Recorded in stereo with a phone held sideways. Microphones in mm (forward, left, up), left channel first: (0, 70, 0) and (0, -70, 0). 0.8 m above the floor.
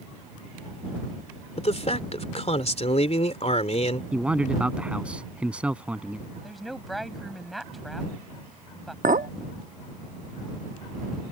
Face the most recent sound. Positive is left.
turn(degrees=-70)  # may be behind; listen again after turning